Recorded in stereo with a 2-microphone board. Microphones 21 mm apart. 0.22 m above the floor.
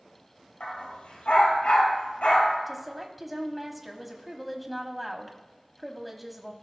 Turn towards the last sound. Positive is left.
turn(degrees=-5)  # may be behind; listen again after turning